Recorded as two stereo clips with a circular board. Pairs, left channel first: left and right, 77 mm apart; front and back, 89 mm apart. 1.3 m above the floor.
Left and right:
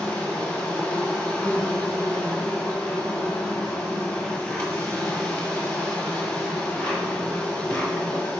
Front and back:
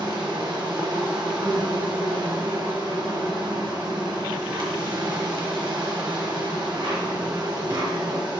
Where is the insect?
160° left, 1.4 m.